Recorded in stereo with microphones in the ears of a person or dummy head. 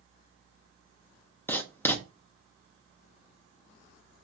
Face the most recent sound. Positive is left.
turn(degrees=15)  # may be behind; listen again after turning